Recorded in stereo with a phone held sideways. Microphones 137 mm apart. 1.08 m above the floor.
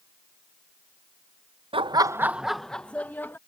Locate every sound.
1.7 s laughter: 40° right (ahead or behind); by 3.4 s 15° left (ahead or behind)